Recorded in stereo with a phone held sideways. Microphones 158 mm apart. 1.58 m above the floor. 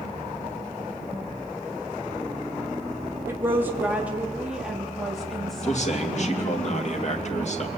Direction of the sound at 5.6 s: 50° left (ahead or behind).